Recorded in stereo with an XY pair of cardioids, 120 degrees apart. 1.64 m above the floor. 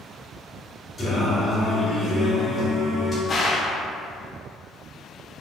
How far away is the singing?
About 1.7 m.